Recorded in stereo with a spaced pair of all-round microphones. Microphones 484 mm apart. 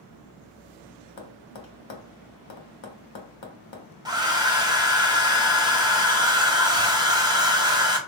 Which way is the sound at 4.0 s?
10° right (ahead or behind).